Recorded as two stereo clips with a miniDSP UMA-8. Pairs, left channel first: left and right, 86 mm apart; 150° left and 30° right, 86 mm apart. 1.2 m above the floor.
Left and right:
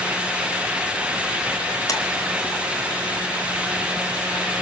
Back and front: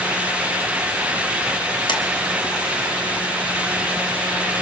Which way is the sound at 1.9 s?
135° left.